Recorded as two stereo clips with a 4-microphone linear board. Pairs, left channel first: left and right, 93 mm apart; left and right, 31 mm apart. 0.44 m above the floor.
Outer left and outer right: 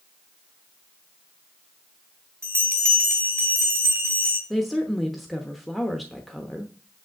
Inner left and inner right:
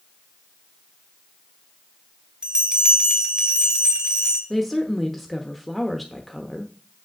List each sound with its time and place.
2.4 s a bell: 35° right (ahead or behind), 1.8 m
4.5 s a woman speaking: centre (ahead or behind), 0.9 m